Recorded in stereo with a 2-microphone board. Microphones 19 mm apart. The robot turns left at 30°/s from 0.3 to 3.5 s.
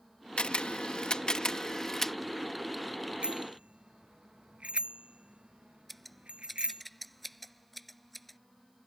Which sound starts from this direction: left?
A camera shutter, at 0.4 s.